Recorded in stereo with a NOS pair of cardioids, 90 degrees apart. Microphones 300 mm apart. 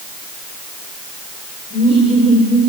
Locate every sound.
1.7 s laughter: 35° right, 6.5 m